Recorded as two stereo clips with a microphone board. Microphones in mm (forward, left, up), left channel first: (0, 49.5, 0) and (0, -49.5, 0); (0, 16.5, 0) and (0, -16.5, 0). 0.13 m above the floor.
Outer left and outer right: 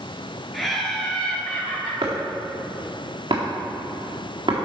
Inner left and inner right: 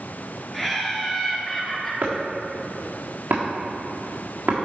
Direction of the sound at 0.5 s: Centre (ahead or behind).